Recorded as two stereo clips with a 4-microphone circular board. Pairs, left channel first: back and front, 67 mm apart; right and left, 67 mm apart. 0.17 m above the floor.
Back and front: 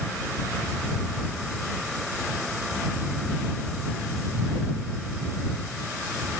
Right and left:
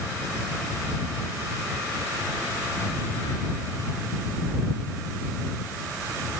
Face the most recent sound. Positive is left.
No sound to turn to.